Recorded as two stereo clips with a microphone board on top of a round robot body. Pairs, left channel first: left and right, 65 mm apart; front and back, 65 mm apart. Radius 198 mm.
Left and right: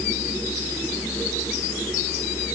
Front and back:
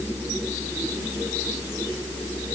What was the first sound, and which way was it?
Only background noise.